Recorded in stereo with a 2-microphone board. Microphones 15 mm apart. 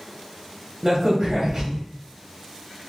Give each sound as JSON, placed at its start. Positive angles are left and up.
{"t": 0.8, "sound": "a crack", "side_deg": -45, "distance_m": 1.1}